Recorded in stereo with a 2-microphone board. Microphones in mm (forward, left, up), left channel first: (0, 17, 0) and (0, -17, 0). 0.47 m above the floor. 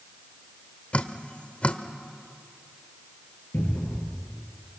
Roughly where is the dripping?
Left.